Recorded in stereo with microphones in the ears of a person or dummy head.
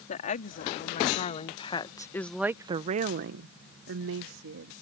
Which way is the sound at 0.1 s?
45° left (ahead or behind).